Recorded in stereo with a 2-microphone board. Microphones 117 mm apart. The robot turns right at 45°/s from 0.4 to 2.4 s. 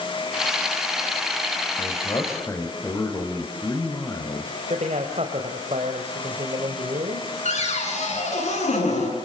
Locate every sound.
1.8 s a man speaking: 55° left (ahead or behind), 3.5 m; by 4.5 s 25° left (ahead or behind), 3.5 m
4.7 s a man speaking: 70° right (ahead or behind), 2.5 m
7.5 s a cupboard door: 80° left, 8 m